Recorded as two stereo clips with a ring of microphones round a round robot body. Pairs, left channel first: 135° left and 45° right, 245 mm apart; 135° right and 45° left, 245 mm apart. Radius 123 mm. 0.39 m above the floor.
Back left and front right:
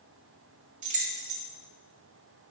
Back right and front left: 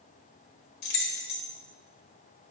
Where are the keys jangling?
100° right, 1.3 m.